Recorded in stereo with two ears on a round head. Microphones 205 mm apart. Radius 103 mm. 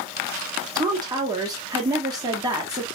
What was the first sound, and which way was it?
A woman speaking, 15° right (ahead or behind).